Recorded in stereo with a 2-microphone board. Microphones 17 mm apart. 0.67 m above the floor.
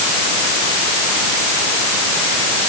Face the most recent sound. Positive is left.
No sound to turn to.